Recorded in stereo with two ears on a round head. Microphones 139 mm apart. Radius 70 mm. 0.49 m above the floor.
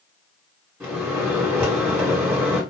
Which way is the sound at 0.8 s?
10° right (ahead or behind).